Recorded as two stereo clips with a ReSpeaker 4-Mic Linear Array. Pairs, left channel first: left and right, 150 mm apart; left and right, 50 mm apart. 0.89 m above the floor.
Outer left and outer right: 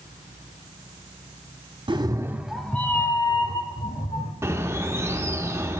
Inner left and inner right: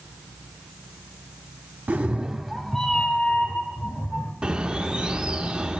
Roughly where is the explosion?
No explosion in this recording.